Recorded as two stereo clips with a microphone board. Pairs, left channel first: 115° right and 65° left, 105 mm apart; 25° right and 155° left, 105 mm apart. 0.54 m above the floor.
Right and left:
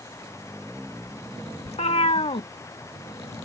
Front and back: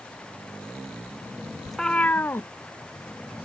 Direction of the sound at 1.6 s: 115° right.